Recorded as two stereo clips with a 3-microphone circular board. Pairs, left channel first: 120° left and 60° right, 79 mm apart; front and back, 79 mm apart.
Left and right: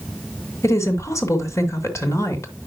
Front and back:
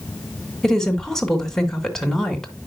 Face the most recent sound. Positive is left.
turn(degrees=85)